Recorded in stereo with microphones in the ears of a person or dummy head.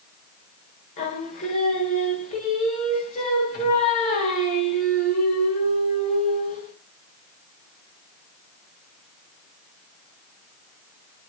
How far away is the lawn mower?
No lawn mower in this recording.